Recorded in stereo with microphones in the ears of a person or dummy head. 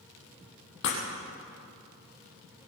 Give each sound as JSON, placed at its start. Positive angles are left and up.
{"t": 0.8, "sound": "breaking glass", "side_deg": 65, "distance_m": 4.0}